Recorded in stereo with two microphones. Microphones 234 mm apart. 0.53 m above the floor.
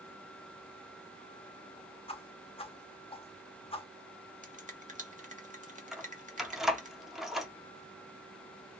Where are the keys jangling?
Centre (ahead or behind), 0.6 m.